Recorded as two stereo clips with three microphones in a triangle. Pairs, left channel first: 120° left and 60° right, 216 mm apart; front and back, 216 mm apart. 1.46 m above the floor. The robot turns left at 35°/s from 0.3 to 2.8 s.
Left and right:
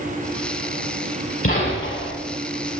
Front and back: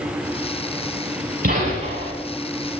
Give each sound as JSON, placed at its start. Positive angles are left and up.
{"t": 1.4, "sound": "a gunshot", "azimuth_deg": 135, "distance_m": 6.0}